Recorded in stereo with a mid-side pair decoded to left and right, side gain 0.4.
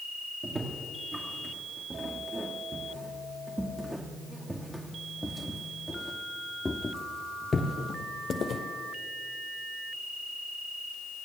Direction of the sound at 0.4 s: 30° right.